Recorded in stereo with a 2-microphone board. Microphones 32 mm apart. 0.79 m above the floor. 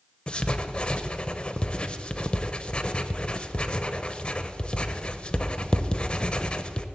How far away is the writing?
About 0.7 m.